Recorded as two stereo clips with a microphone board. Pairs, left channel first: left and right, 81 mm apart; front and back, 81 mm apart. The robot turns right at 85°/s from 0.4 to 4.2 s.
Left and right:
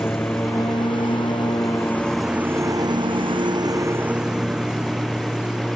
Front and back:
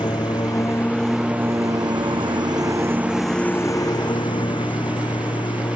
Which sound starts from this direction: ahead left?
A lawn mower, at 0.0 s.